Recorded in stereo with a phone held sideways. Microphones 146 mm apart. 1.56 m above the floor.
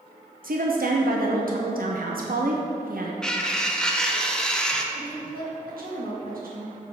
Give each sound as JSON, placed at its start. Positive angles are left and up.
{"t": 0.4, "sound": "a woman speaking", "side_deg": -75, "distance_m": 0.8}
{"t": 3.2, "sound": "cutlery clinking", "side_deg": 5, "distance_m": 0.6}
{"t": 4.9, "sound": "a woman speaking", "side_deg": -80, "distance_m": 1.7}